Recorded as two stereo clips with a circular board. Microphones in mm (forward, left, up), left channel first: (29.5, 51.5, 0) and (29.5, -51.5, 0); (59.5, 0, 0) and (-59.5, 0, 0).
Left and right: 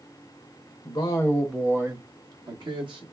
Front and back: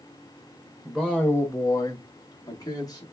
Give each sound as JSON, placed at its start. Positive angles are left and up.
{"t": 0.8, "sound": "a man speaking", "azimuth_deg": 90, "distance_m": 0.7}